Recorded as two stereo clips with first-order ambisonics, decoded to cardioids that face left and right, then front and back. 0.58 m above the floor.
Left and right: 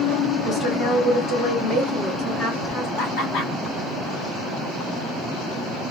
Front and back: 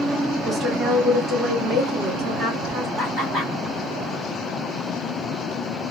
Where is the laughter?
95° left, 2 m.